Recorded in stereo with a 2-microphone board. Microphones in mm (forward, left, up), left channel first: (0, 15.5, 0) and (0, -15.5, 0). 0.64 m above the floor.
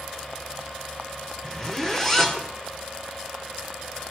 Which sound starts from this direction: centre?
A zipper, at 1.4 s.